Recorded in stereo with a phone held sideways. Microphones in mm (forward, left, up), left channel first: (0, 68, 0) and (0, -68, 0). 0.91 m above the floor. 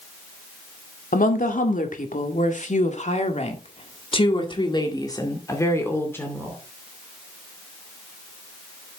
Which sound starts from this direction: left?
A woman speaking, at 1.1 s.